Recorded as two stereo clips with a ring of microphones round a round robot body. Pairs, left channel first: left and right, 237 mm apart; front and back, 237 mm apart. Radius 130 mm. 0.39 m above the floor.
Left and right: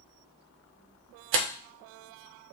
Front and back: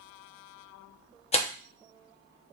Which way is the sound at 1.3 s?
60° right.